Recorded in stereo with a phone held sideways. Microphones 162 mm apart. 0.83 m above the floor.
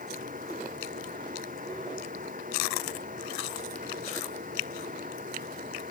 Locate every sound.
0.0 s a fan: 55° right (ahead or behind)